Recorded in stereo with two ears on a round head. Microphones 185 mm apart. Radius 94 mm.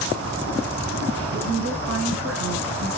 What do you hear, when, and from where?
1.3 s a woman speaking: 80° right, 4.5 m